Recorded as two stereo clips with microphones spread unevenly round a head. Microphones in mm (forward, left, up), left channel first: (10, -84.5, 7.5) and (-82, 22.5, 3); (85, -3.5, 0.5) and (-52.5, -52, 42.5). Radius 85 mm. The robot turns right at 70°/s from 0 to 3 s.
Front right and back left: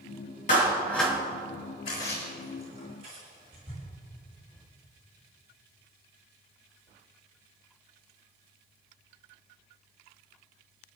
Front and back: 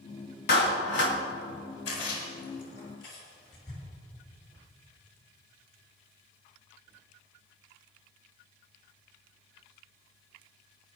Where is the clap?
Straight ahead, 3 m; by 1.2 s 50° left, 3 m.